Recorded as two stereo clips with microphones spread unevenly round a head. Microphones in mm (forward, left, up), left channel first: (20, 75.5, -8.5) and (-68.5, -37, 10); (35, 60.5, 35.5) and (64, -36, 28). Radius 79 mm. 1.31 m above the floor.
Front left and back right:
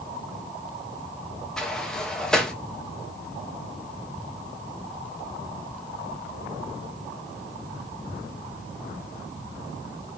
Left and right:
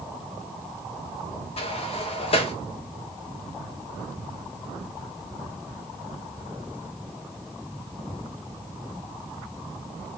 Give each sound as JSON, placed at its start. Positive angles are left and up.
{"t": 1.6, "sound": "a sliding door", "azimuth_deg": 135, "distance_m": 0.8}